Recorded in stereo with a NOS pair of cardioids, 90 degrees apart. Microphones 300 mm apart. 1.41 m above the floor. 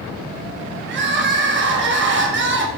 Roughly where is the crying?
Ahead right.